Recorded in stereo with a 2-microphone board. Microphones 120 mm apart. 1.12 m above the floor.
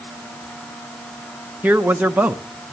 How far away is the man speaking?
About 0.8 m.